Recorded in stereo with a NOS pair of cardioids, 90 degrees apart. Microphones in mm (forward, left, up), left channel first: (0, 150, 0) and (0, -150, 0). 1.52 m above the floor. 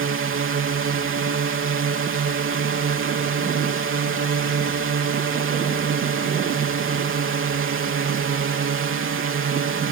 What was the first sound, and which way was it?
A drone, 45° right.